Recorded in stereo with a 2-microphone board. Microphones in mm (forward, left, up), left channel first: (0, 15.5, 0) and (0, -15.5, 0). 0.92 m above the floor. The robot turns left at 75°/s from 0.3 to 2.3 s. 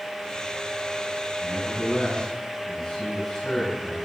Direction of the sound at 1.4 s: 90° left.